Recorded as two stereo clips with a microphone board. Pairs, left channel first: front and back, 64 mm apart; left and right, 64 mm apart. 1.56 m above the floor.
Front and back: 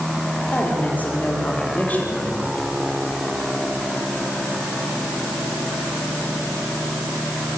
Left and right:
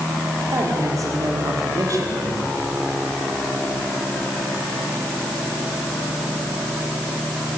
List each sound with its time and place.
0.5 s a woman speaking: 65° right, 5.5 m